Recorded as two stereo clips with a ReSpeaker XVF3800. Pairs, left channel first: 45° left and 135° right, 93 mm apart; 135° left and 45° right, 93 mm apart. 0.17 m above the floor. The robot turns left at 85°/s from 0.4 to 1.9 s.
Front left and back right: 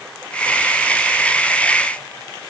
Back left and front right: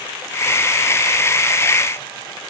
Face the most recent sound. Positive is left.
No sound to turn to.